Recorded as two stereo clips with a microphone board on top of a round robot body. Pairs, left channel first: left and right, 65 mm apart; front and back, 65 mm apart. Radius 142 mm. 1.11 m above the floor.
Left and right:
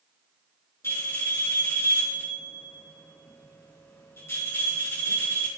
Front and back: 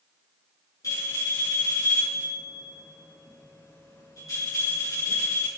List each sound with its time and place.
0.8 s a bell: 40° left, 4.5 m